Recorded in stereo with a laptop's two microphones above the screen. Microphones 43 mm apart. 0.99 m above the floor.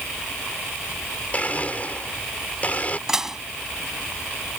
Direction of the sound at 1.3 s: 35° left (ahead or behind).